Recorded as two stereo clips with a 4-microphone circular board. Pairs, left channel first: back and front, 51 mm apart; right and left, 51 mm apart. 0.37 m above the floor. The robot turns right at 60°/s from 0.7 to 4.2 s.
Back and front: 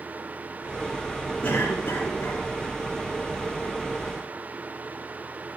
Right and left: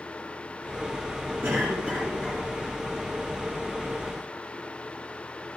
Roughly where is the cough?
Behind left.